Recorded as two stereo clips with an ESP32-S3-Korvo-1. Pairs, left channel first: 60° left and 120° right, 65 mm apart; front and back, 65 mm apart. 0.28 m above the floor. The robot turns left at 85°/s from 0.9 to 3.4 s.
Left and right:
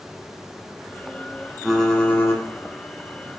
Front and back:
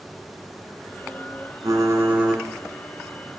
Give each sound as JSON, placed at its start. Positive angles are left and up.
{"t": 1.6, "sound": "typing on a keyboard", "azimuth_deg": 160, "distance_m": 1.5}